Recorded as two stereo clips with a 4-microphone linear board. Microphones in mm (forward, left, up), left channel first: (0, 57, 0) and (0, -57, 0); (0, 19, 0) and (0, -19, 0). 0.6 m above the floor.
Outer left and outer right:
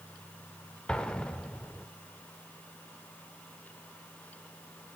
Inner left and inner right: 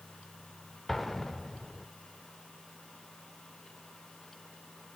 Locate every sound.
0.9 s an explosion: 10° left (ahead or behind), 0.8 m